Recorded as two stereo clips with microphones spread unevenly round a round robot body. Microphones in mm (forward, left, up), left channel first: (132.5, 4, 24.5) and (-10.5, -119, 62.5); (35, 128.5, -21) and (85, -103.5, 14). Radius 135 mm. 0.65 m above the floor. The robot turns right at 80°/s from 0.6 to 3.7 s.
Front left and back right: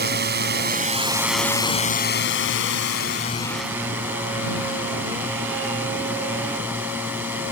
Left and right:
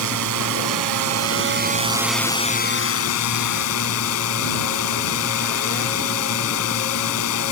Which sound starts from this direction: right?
A drone, at 0.0 s.